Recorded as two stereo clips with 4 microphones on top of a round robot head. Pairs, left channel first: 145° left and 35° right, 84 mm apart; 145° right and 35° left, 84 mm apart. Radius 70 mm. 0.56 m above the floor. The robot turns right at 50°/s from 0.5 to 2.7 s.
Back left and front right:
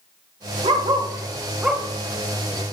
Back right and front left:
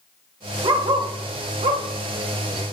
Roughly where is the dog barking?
Ahead.